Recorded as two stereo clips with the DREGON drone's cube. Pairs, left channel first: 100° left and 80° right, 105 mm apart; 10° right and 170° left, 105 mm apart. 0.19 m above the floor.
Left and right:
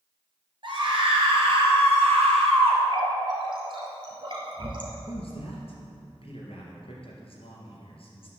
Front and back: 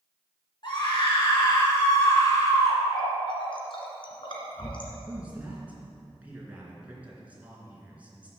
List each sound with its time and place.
0.6 s a scream: 45° right, 2.5 m; by 2.8 s 60° right, 3.5 m
2.9 s a running tap: 45° right, 2.0 m
5.1 s a man speaking: 95° left, 3 m